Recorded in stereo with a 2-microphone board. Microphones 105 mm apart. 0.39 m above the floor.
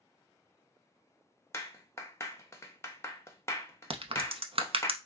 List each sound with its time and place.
1.5 s a clap: 25° left (ahead or behind), 0.7 m
3.9 s a crack: 65° right (ahead or behind), 0.6 m